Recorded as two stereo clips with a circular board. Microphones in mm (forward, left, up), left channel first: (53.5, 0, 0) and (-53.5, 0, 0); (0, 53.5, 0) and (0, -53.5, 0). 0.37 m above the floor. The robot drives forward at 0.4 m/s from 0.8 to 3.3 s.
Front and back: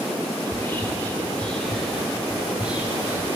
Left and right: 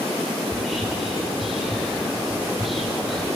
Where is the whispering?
Straight ahead, 1.4 m; by 3.4 s straight behind, 1.4 m.